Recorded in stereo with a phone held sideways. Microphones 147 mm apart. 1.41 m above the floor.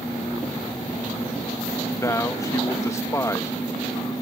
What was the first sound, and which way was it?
A man speaking, 20° left (ahead or behind).